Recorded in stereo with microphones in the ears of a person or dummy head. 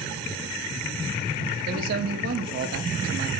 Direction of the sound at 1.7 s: 50° right (ahead or behind).